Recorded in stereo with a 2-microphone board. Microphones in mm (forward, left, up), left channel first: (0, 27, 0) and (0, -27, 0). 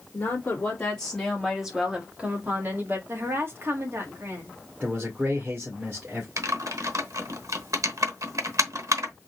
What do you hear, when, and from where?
0.1 s a woman speaking: 35° left (ahead or behind), 2.0 m; by 3.0 s 40° right (ahead or behind), 1.9 m
3.1 s a woman speaking: 45° right (ahead or behind), 1.6 m
4.8 s a man speaking: 35° right (ahead or behind), 1.9 m
6.4 s typing on a keyboard: 70° right (ahead or behind), 1.0 m